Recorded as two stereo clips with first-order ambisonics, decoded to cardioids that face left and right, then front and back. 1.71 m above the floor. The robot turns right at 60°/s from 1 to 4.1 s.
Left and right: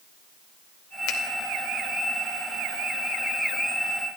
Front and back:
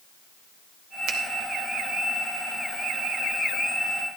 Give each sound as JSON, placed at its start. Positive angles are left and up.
{"t": 1.1, "sound": "a finger snap", "azimuth_deg": 130, "distance_m": 1.8}